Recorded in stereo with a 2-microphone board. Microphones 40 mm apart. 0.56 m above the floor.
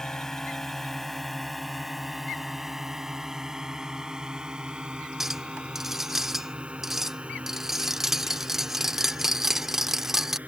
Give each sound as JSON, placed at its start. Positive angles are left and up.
{"t": 0.0, "sound": "a drone", "side_deg": 15}
{"t": 5.2, "sound": "a clink", "side_deg": -10}